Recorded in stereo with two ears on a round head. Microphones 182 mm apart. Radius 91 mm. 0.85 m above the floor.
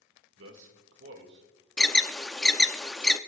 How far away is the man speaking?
About 2.0 m.